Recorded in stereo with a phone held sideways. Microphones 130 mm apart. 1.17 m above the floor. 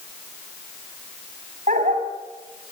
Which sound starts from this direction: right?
A dog barking, at 1.7 s.